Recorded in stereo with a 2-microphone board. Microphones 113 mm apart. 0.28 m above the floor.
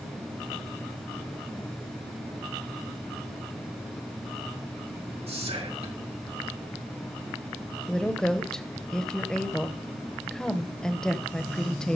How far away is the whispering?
About 3.5 m.